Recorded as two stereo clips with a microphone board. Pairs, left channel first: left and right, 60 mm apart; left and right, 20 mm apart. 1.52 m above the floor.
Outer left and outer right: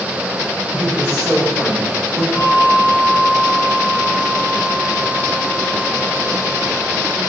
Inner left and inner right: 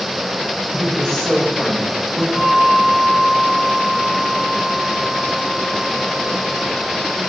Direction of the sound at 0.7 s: 25° left (ahead or behind).